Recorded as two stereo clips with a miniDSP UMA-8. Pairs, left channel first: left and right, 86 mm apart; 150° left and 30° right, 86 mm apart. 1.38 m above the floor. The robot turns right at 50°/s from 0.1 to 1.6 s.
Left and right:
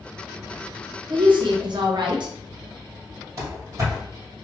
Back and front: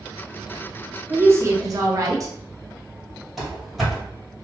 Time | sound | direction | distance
1.1 | a woman speaking | 100° right | 0.7 m
3.4 | running footsteps | 115° right | 1.8 m